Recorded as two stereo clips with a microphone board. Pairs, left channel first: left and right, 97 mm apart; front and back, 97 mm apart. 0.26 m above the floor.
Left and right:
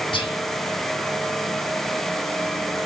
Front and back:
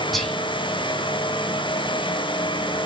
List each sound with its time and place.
0.1 s whispering: 90° left, 2.5 m